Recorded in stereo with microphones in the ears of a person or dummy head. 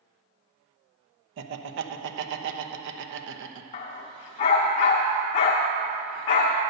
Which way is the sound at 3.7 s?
25° left (ahead or behind).